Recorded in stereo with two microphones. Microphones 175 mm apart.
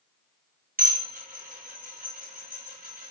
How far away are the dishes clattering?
About 3 m.